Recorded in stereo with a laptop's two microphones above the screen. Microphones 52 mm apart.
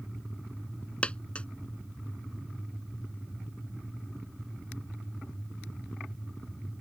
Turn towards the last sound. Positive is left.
turn(degrees=25)  # may be behind; listen again after turning